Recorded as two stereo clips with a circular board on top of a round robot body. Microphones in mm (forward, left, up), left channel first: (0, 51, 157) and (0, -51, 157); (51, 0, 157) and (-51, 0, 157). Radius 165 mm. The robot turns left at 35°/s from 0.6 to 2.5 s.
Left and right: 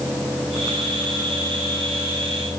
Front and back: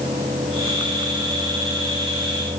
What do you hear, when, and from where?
Only background noise.